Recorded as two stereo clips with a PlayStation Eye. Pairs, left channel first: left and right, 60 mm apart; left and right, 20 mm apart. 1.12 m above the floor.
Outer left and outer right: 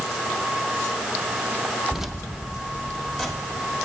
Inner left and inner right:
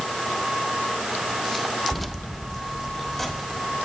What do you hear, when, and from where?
1.9 s keys jangling: 5° right (ahead or behind), 0.6 m; by 3.8 s centre (ahead or behind), 2.5 m